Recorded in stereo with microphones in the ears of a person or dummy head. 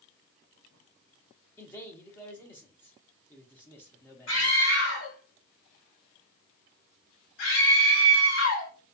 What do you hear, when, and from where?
1.6 s a man speaking: 10° left (ahead or behind), 0.5 m
4.3 s a scream: 70° left (ahead or behind), 1.2 m